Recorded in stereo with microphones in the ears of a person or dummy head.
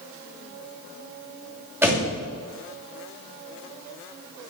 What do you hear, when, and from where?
1.8 s a door slam: 20° right (ahead or behind), 2.5 m